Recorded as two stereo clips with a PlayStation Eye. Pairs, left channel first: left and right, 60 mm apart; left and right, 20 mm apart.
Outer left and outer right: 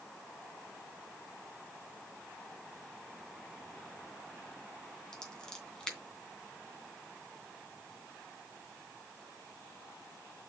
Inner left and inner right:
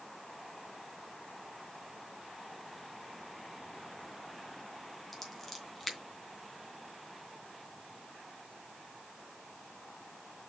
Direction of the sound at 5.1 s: 10° left (ahead or behind).